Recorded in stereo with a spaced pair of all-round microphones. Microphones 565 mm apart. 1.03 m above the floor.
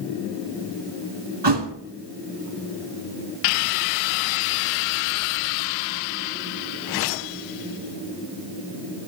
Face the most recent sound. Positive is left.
turn(degrees=-45)  # may be behind; listen again after turning